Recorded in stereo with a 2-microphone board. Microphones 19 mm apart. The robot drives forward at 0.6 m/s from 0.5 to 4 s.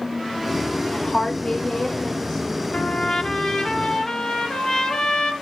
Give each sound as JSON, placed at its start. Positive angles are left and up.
{"t": 0.9, "sound": "a woman speaking", "side_deg": 50, "distance_m": 1.5}
{"t": 2.7, "sound": "a trumpet", "side_deg": 50, "distance_m": 1.1}